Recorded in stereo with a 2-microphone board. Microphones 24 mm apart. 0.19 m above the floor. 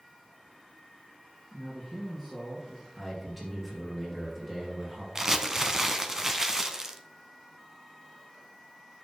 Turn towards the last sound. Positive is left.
turn(degrees=-25)  # may be behind; listen again after turning